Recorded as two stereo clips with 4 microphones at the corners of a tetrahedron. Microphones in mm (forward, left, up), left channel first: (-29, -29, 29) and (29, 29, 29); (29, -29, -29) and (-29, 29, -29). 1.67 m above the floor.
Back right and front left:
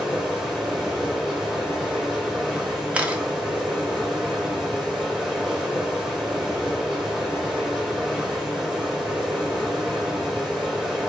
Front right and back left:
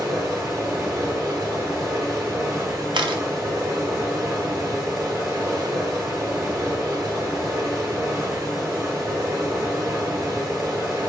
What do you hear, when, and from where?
0.0 s running water: 135° left, 1.4 m
2.9 s a camera shutter: 120° left, 0.6 m